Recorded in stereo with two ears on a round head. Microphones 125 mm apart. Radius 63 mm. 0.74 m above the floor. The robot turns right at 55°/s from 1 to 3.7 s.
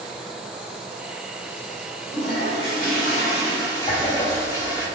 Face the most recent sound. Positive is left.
turn(degrees=35)  # may be behind; listen again after turning